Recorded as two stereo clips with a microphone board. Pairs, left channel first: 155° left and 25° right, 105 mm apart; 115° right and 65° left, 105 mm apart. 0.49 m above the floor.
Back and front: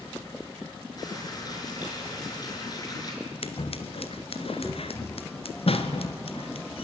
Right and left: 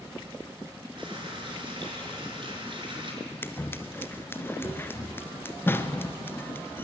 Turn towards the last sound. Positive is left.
turn(degrees=180)